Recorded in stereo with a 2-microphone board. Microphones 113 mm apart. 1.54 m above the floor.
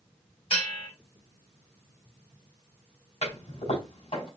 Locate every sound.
0.5 s a bell: 60° left (ahead or behind), 2 m
3.2 s a toilet flushing: 70° left (ahead or behind), 4.5 m